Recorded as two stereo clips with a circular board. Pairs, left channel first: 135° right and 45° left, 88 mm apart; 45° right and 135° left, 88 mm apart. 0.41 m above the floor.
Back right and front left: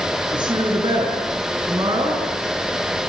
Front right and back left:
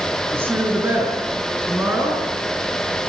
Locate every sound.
0.3 s a woman speaking: 75° left, 6 m